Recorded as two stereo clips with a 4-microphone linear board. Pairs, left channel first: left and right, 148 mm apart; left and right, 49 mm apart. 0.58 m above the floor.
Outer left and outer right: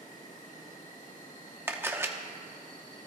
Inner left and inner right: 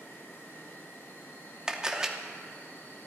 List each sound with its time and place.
0.0 s an insect: 65° left (ahead or behind), 2.5 m
1.7 s a camera shutter: 15° right (ahead or behind), 0.7 m